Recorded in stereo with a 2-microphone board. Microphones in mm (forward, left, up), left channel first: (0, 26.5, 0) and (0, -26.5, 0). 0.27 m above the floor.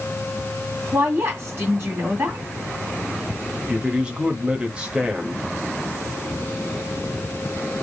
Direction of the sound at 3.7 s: 20° right (ahead or behind).